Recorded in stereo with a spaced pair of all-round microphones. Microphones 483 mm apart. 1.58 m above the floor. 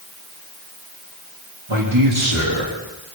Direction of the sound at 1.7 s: 80° right.